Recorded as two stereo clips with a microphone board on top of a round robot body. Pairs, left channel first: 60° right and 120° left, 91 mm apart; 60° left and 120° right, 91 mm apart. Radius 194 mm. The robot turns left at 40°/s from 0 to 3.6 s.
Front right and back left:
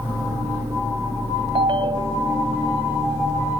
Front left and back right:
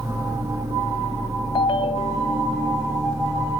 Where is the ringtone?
95° left; by 2.5 s 55° left.